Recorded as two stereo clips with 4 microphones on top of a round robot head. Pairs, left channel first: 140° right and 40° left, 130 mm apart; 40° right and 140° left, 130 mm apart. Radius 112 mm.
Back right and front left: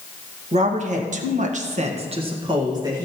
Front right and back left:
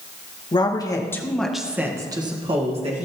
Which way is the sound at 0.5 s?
10° left.